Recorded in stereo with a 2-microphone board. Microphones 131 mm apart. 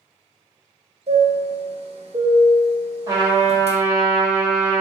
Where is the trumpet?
30° right (ahead or behind), 2 m.